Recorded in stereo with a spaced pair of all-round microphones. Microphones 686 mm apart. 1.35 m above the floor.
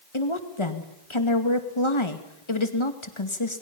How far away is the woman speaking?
About 2.5 m.